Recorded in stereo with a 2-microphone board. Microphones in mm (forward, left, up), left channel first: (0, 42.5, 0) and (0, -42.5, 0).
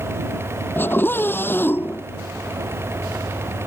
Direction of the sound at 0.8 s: 25° left (ahead or behind).